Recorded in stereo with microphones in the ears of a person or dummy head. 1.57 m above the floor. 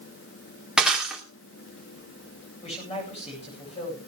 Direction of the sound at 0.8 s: 5° right (ahead or behind).